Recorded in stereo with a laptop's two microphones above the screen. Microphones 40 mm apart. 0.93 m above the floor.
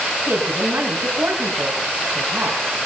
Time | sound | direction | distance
0.3 | a woman speaking | 70° right (ahead or behind) | 6.5 m